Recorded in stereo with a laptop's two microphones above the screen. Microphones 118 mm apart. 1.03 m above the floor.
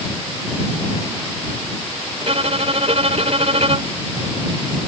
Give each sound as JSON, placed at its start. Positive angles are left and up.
{"t": 2.2, "sound": "a violin", "side_deg": -65}